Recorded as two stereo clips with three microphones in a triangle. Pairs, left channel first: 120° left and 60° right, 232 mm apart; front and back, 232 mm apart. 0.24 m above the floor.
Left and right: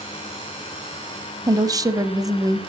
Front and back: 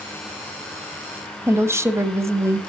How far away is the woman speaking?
About 1.0 m.